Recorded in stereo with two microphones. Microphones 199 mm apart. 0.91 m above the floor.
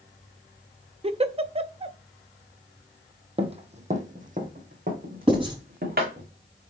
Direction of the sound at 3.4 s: 30° right (ahead or behind).